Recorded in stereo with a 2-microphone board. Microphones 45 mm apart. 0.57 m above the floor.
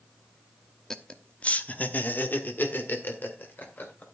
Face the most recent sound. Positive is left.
turn(degrees=50)  # may be behind; listen again after turning